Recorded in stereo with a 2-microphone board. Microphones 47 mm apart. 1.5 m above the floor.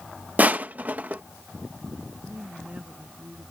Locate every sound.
0.4 s crushing: 35° right (ahead or behind)
2.2 s a woman speaking: 30° right (ahead or behind)